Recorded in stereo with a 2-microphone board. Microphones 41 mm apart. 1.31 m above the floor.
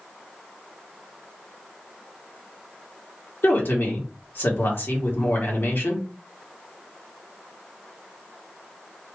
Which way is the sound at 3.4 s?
70° left (ahead or behind).